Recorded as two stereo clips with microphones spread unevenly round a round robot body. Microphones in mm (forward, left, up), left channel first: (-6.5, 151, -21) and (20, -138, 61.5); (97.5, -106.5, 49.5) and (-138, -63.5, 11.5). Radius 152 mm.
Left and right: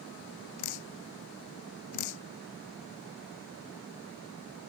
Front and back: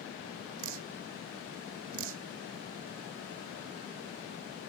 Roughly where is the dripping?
Behind left.